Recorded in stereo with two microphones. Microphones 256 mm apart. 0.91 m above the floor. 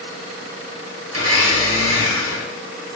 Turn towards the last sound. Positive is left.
turn(degrees=-65)  # may be behind; listen again after turning